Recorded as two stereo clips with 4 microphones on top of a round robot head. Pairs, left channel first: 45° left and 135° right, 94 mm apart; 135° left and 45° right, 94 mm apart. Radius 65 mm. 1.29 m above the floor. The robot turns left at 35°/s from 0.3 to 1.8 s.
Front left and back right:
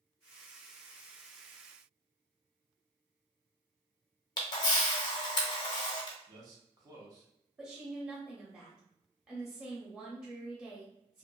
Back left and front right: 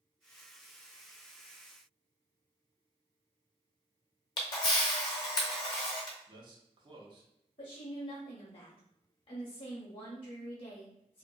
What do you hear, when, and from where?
4.4 s a camera shutter: 85° left, 0.6 m
6.3 s a man speaking: 85° right, 0.9 m
7.6 s a woman speaking: 145° left, 0.8 m